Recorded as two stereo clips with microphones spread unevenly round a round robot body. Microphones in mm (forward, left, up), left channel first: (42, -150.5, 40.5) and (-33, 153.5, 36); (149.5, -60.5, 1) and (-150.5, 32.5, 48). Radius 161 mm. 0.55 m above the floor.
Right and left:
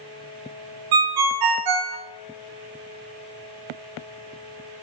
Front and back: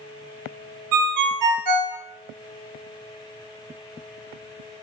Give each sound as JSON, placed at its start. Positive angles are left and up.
{"t": 0.9, "sound": "a ringtone", "azimuth_deg": 125, "distance_m": 0.6}